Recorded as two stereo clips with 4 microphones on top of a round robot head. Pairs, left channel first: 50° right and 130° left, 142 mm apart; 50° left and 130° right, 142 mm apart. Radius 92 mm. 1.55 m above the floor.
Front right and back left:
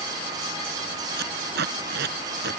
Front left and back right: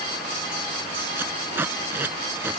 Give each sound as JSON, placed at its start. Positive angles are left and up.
{"t": 1.2, "sound": "tape being pulled", "azimuth_deg": 150}